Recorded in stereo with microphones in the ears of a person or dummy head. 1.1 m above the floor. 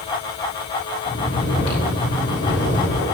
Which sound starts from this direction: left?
Snoring, at 1.1 s.